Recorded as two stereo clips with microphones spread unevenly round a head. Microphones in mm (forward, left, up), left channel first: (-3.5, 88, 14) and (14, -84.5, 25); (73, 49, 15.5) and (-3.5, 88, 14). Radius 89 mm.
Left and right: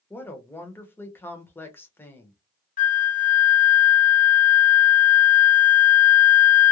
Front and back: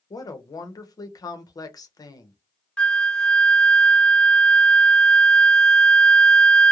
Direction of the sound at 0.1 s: 20° left.